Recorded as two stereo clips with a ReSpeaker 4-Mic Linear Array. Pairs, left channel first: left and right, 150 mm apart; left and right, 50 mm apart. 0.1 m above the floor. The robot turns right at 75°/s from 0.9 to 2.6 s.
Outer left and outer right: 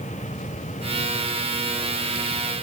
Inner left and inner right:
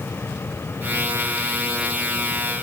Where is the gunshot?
No gunshot in this recording.